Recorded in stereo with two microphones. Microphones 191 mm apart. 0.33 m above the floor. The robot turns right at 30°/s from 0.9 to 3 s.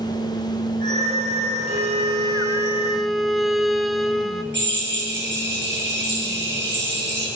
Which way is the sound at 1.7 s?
40° right.